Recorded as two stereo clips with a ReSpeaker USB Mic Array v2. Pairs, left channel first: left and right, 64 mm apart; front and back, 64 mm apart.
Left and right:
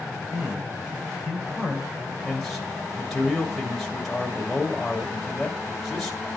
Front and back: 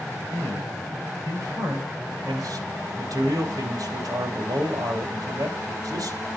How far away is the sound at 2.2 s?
About 3 m.